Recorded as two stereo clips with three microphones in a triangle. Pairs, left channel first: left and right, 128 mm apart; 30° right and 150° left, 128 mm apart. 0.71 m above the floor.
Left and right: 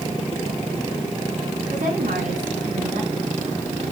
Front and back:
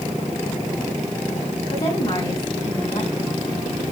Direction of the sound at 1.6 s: 80° right.